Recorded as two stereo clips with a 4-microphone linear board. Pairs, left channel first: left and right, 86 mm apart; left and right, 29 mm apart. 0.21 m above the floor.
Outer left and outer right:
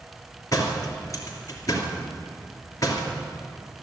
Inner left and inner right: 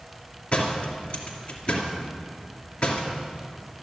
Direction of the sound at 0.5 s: 40° left (ahead or behind).